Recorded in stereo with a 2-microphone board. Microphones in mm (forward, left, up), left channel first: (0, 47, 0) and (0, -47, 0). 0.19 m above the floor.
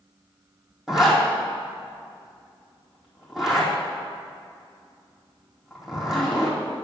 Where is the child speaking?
No child speaking in this recording.